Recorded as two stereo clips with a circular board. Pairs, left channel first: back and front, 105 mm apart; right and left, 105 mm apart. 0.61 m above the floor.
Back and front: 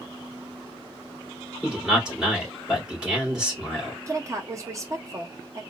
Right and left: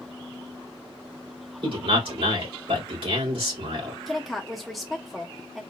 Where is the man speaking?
80° left, 2.5 m.